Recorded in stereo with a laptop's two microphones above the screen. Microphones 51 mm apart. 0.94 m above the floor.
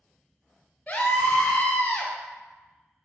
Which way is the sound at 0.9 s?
30° left (ahead or behind).